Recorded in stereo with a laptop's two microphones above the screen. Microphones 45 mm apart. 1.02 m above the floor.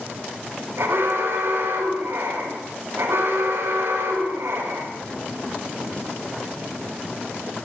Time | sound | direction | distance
0.8 | an alarm | 70° right (ahead or behind) | 6.5 m